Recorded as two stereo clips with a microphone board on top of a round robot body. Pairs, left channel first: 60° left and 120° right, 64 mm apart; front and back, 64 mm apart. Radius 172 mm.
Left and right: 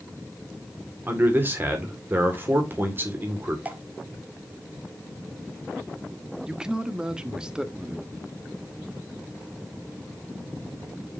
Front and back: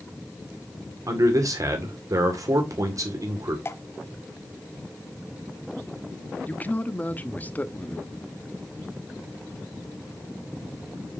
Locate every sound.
1.1 s a man speaking: 175° right, 2 m
3.6 s dripping: 55° right, 1.2 m
6.5 s a man speaking: 50° right, 1.3 m